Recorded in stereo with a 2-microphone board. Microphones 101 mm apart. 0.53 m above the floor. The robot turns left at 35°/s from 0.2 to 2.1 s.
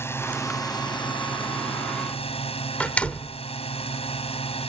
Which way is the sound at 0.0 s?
155° left.